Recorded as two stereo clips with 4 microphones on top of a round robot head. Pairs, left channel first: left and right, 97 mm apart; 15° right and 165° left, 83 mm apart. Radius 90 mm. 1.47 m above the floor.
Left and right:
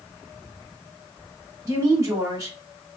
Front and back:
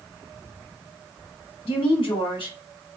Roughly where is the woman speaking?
Ahead right.